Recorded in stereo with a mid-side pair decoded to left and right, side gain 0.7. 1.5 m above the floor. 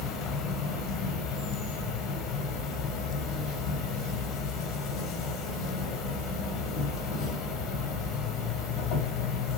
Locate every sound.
0.0 s an insect: 50° left, 1.2 m